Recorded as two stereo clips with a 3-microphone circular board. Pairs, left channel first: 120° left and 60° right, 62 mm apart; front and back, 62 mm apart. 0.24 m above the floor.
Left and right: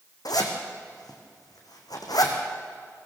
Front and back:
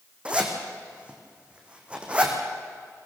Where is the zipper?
110° left, 3 m.